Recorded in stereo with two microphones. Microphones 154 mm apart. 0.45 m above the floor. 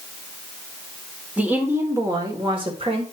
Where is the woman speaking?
10° right (ahead or behind), 1.6 m; by 3.0 s 40° right (ahead or behind), 1.9 m.